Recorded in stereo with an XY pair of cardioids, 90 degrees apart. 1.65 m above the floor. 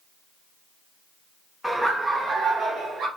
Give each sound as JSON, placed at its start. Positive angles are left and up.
{"t": 1.6, "sound": "laughter", "azimuth_deg": -5, "distance_m": 0.7}